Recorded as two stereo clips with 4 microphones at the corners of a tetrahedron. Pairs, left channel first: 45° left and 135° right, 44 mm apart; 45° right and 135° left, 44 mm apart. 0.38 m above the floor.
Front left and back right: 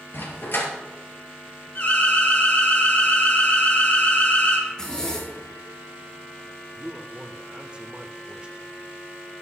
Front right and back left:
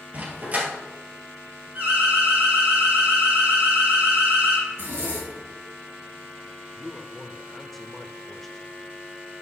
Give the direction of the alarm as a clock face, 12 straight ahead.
9 o'clock.